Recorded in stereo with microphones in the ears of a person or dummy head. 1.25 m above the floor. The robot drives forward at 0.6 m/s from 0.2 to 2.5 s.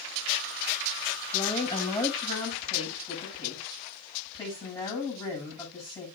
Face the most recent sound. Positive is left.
turn(degrees=15)  # may be behind; listen again after turning